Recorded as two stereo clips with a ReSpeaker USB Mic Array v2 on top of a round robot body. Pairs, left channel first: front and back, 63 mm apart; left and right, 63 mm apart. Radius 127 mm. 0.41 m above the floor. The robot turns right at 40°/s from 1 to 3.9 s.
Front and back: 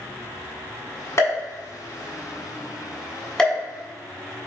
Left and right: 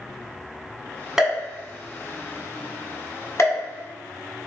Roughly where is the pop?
Ahead.